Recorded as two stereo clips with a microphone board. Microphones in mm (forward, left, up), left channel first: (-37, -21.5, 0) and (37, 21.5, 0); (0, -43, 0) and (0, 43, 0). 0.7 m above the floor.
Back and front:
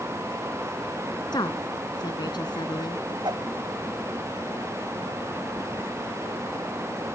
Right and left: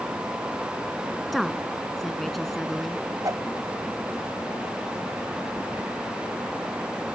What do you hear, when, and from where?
1.3 s a woman speaking: straight behind
3.2 s a whoosh: 50° left